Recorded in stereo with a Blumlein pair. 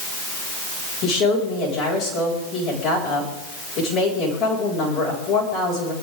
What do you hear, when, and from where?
1.0 s a woman speaking: 25° left, 8 m